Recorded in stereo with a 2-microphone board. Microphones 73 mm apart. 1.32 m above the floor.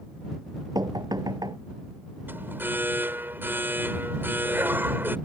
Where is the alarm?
30° right (ahead or behind).